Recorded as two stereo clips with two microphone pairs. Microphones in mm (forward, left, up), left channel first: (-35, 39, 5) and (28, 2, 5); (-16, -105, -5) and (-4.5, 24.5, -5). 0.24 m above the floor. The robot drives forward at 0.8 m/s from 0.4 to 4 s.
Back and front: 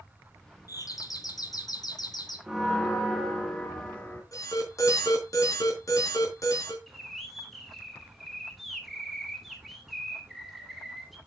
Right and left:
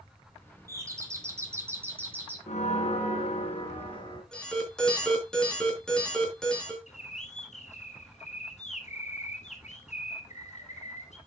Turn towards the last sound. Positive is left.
turn(degrees=-120)